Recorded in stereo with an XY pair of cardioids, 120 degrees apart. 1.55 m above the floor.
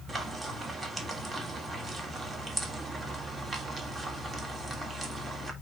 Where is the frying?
30° right, 3 m.